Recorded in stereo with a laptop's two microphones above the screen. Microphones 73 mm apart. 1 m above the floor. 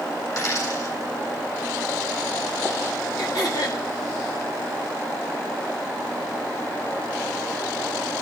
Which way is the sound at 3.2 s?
60° left (ahead or behind).